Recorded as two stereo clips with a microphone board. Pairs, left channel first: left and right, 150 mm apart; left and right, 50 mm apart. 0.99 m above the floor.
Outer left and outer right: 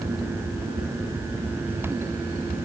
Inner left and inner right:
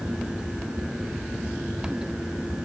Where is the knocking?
I don't hear knocking.